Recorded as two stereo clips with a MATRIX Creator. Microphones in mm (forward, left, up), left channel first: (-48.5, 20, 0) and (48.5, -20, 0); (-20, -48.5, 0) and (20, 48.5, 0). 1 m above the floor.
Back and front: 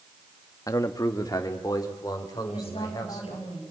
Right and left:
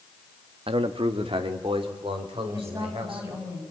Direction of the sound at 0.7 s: 100° left.